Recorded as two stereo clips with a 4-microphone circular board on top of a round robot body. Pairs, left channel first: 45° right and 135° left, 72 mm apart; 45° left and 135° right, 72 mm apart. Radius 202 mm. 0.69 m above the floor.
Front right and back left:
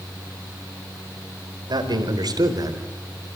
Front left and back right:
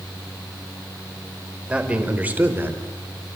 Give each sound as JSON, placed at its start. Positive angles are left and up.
{"t": 1.7, "sound": "a man speaking", "azimuth_deg": 150, "distance_m": 5.0}